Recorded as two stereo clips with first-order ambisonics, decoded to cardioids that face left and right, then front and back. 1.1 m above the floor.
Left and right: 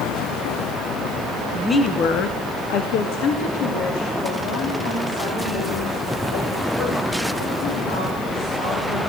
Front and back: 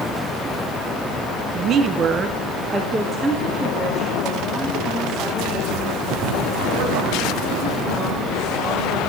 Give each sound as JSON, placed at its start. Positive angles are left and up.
{"t": 1.5, "sound": "a woman speaking", "azimuth_deg": -170, "distance_m": 0.7}